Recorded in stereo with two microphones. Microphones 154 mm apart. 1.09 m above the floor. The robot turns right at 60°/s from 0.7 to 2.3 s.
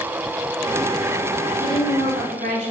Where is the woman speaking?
100° right, 4 m; by 2.7 s 60° right, 4 m.